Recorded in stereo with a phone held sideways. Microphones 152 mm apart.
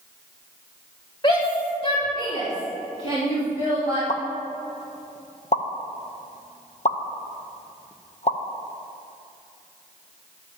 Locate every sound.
1.2 s a shout: 30° left (ahead or behind), 1.3 m; by 4.0 s 40° left (ahead or behind), 4.5 m
4.1 s a pop: 45° left (ahead or behind), 0.8 m